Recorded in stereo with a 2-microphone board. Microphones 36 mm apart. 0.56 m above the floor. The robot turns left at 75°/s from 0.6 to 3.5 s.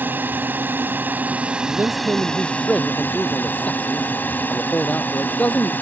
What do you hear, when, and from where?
0.0 s a drone: 75° right; by 5.8 s 65° left
1.7 s a man speaking: 90° right; by 5.7 s 135° left